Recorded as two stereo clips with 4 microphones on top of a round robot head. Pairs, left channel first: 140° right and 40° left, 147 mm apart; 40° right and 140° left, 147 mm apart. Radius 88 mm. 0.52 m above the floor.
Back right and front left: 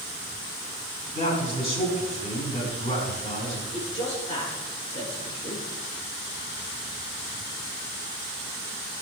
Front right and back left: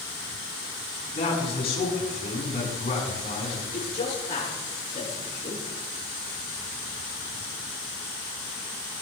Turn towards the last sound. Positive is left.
turn(degrees=-90)